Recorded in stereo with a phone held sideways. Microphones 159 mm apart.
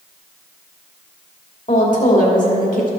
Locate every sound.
1.7 s a woman speaking: 55° left (ahead or behind), 2 m